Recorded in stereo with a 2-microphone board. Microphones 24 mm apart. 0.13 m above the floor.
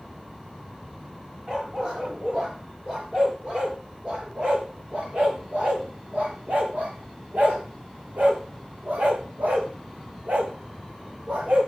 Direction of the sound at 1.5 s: 30° right (ahead or behind).